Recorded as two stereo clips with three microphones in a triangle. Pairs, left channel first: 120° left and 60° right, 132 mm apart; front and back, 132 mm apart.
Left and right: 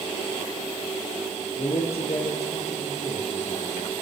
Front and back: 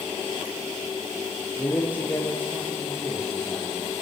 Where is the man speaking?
80° left, 8 m.